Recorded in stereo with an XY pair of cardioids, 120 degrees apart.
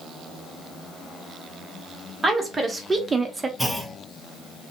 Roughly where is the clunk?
Ahead.